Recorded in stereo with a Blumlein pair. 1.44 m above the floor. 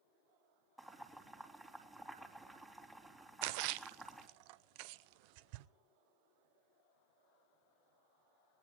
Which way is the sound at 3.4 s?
45° right.